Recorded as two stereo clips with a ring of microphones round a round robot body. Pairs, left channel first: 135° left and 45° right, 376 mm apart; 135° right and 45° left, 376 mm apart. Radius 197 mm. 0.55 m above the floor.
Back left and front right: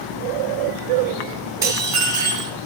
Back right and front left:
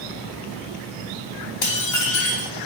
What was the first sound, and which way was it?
Dishes clattering, 125° right.